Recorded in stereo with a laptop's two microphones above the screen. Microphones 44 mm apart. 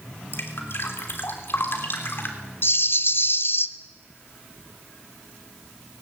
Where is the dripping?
55° left (ahead or behind), 3 m.